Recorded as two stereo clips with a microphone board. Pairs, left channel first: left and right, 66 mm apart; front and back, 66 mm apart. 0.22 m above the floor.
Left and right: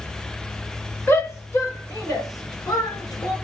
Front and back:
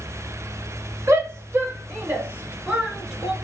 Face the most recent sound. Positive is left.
turn(degrees=100)